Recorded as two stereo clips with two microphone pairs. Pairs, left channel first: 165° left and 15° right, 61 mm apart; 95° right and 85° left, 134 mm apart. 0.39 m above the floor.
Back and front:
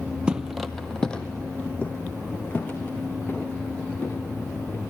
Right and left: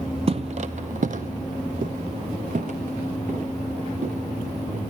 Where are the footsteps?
50° left, 0.6 m; by 4.8 s 105° left, 3 m.